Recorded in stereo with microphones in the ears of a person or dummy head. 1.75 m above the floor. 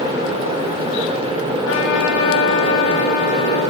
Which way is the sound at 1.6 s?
75° left (ahead or behind).